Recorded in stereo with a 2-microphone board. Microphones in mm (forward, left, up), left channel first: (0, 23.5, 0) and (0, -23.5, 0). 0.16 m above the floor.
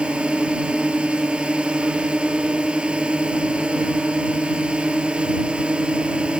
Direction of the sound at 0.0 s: 25° right (ahead or behind).